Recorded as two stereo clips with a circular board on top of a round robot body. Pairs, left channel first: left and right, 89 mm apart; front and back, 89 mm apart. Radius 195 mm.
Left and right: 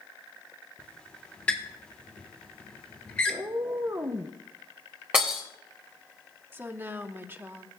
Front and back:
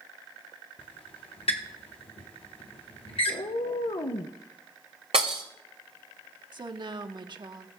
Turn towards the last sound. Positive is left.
turn(degrees=-155)